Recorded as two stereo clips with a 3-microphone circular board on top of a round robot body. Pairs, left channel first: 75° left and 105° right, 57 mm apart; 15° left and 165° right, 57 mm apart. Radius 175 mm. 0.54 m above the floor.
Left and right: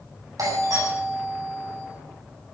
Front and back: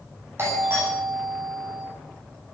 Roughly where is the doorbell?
Behind right.